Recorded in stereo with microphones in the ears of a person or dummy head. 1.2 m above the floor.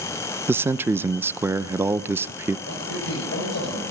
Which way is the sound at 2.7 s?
65° left (ahead or behind).